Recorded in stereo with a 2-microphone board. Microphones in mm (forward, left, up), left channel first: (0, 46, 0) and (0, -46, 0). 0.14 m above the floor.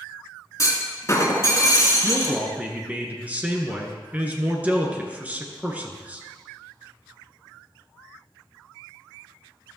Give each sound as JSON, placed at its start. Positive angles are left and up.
{"t": 0.6, "sound": "a clunk", "side_deg": 35, "distance_m": 2.0}
{"t": 2.0, "sound": "a man speaking", "side_deg": -15, "distance_m": 1.7}